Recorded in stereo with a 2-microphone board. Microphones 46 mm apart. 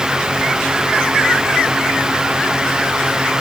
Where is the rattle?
I don't hear a rattle.